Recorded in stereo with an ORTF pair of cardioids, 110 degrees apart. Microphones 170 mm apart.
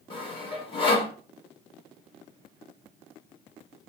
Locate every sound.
0.1 s sawing: 30° left, 1.2 m